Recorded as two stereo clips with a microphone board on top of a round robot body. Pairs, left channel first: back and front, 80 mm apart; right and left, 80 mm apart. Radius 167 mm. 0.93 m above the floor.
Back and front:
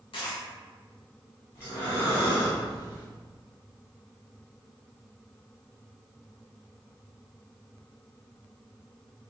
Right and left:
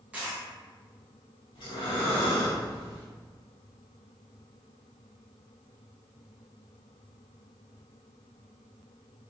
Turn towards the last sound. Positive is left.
turn(degrees=-115)